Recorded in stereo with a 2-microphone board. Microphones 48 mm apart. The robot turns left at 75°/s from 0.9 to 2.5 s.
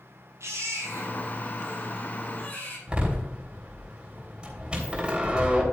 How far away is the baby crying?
About 5.5 m.